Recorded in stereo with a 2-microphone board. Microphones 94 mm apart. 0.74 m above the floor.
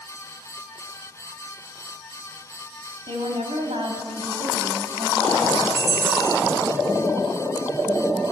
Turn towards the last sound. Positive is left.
turn(degrees=-30)  # may be behind; listen again after turning